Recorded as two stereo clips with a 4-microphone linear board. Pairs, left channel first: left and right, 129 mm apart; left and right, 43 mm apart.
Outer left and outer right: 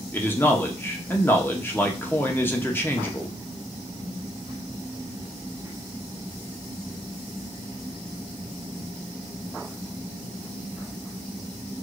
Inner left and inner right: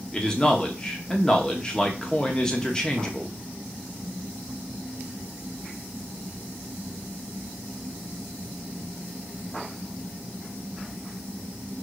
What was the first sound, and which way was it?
A man speaking, 20° left (ahead or behind).